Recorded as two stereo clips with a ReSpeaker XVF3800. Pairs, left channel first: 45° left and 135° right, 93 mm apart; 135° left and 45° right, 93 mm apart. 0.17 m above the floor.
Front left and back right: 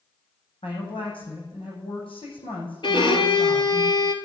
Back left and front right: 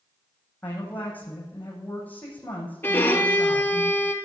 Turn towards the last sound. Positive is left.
turn(degrees=70)